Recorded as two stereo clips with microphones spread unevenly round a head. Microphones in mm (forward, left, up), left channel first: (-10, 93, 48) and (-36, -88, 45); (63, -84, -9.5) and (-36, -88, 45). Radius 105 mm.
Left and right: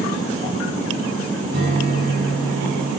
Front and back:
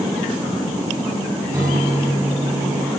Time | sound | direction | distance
1.5 | a guitar | 110° right | 4.5 m